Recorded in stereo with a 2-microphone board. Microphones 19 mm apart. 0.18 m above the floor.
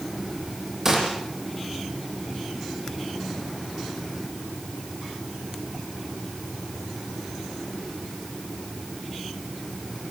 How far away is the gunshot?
About 8.5 m.